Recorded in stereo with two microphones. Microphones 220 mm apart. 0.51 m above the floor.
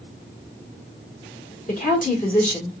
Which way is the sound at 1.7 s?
35° left (ahead or behind).